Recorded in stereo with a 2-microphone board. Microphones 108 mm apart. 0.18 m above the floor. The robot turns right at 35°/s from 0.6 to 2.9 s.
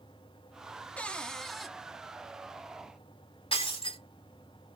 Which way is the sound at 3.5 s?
55° left (ahead or behind).